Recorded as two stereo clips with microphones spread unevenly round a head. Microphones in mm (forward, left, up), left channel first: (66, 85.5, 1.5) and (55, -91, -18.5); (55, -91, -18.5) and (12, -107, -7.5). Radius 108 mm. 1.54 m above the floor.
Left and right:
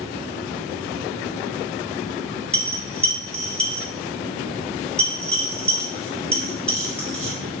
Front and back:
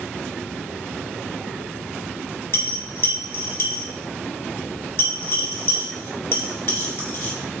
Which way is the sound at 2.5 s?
10° left.